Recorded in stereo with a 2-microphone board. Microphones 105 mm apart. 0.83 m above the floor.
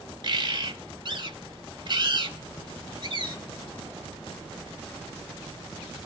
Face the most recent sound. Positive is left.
turn(degrees=-50)  # may be behind; listen again after turning